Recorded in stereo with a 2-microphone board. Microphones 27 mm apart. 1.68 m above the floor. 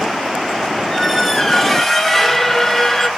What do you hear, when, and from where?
0.9 s a squeak: 10° left (ahead or behind), 0.8 m